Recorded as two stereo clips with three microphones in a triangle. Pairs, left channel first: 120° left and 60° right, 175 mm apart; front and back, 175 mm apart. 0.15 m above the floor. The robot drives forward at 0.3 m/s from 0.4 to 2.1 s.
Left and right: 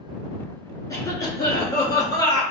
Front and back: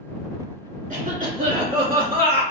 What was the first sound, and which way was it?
A cough, 175° right.